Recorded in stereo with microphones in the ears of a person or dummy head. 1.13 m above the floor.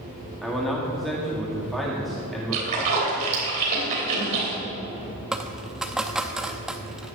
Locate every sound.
0.4 s a man speaking: centre (ahead or behind), 2 m
2.5 s a splash: 40° right (ahead or behind), 3 m
5.3 s a dropped coin: 5° right (ahead or behind), 0.5 m